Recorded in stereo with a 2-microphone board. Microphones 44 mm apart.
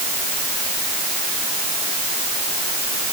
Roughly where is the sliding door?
I don't hear a sliding door.